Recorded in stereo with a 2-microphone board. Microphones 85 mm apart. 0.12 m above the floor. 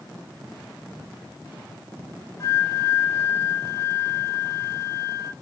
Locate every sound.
2.4 s a flute: 40° left (ahead or behind), 0.7 m